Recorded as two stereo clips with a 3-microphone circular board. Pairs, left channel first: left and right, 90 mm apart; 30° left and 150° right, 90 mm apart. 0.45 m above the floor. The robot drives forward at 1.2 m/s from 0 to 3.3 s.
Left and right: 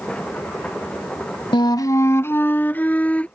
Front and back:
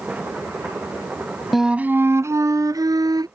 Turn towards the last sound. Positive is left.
turn(degrees=165)